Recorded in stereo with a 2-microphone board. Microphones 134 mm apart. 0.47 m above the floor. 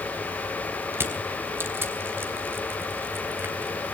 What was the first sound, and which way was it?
Crushing, 15° right (ahead or behind).